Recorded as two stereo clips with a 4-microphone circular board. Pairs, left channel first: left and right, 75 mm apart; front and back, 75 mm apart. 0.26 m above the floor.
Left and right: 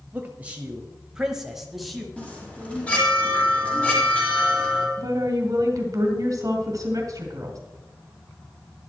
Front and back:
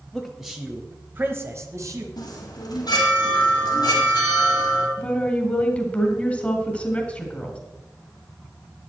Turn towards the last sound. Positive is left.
turn(degrees=-65)